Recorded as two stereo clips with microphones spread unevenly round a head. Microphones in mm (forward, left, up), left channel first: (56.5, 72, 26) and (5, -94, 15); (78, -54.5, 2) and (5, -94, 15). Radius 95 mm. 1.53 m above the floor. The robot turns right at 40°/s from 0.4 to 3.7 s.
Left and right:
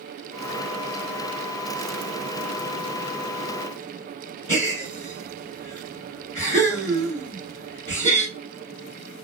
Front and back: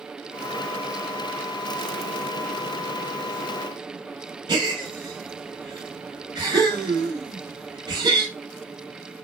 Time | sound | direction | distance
4.5 | a gasp | 160° right | 2.5 m